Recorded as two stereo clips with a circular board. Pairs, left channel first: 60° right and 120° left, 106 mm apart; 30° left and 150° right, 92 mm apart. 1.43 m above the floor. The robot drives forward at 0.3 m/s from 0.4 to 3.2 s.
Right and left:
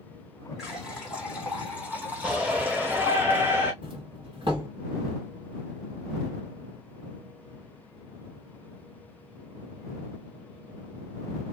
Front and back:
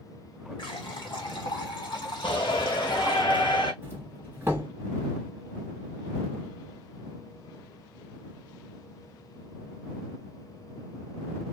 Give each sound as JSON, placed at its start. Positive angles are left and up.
{"t": 0.6, "sound": "a running tap", "azimuth_deg": 35, "distance_m": 1.8}
{"t": 2.2, "sound": "a shout", "azimuth_deg": 40, "distance_m": 1.2}
{"t": 3.8, "sound": "a doorbell", "azimuth_deg": 145, "distance_m": 1.7}